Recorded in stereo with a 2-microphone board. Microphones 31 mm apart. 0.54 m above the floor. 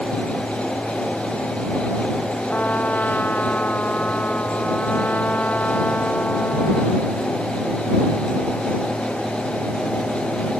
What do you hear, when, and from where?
2.5 s a trumpet: 65° left (ahead or behind)